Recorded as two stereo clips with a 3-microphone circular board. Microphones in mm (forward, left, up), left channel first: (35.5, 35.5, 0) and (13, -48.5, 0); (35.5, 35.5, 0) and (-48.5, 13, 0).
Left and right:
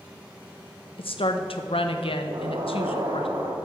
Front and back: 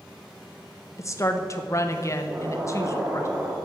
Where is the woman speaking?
70° left, 0.8 m.